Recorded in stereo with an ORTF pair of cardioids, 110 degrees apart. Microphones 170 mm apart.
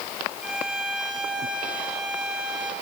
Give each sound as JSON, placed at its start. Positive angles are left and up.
{"t": 0.4, "sound": "a violin", "azimuth_deg": -5, "distance_m": 2.5}